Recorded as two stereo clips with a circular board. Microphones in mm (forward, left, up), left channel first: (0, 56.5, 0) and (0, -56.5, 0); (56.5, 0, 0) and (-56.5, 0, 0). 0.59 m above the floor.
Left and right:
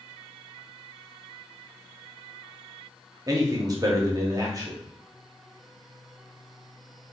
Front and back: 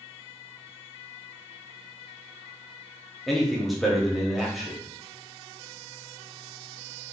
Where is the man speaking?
90° right, 0.8 m.